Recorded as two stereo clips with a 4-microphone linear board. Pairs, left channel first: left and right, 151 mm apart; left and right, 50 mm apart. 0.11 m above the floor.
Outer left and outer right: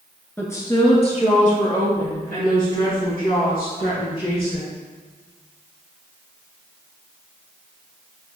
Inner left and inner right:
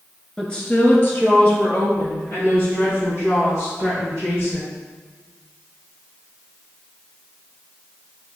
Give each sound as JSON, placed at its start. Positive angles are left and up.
{"t": 0.4, "sound": "a woman speaking", "side_deg": 10, "distance_m": 1.2}